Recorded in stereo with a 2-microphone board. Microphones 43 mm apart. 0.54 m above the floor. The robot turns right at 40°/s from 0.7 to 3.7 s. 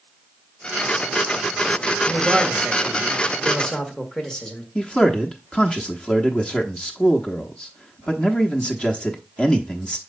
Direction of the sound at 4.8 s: 25° left (ahead or behind).